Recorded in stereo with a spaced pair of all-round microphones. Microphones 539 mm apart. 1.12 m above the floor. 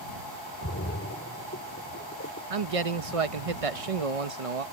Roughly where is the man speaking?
Right.